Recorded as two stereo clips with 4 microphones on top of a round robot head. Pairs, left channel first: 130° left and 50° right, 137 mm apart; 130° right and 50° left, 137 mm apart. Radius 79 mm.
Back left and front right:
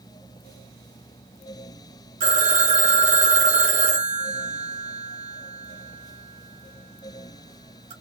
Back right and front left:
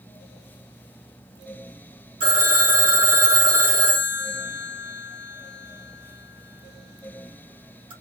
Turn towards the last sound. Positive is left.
turn(degrees=-5)